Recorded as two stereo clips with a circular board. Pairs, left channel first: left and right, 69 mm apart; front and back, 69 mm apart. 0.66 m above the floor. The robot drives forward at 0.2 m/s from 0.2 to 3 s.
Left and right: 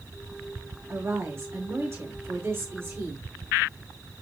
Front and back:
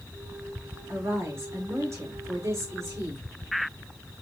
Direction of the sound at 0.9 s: 140° right.